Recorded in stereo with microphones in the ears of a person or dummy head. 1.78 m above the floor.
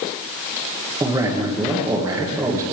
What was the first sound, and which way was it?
A man speaking, 15° right (ahead or behind).